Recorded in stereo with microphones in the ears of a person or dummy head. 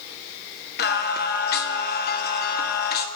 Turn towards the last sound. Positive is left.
turn(degrees=50)  # may be behind; listen again after turning